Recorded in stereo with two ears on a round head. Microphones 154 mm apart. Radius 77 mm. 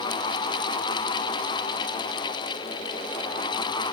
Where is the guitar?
I don't hear a guitar.